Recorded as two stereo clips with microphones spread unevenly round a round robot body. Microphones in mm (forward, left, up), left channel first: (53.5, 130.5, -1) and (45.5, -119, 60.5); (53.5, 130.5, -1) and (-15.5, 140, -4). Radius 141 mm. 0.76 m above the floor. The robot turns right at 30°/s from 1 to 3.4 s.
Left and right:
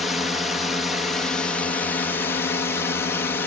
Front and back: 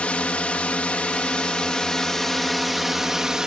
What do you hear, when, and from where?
0.0 s a drone: 35° left; by 3.5 s 105° left